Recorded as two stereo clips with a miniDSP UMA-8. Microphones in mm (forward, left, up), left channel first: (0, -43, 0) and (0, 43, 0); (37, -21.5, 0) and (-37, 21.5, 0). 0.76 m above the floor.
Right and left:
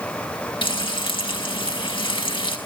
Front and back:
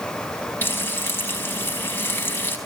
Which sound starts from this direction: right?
Frying, at 0.6 s.